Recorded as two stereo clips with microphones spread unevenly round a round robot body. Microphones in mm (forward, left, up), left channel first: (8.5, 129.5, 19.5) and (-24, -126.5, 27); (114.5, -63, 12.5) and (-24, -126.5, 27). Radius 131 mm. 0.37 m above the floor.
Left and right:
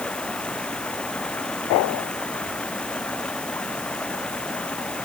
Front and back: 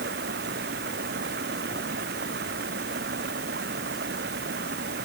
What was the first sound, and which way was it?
Running water, 170° left.